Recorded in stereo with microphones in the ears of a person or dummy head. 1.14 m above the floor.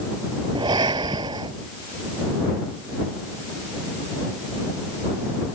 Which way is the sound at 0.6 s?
20° right (ahead or behind).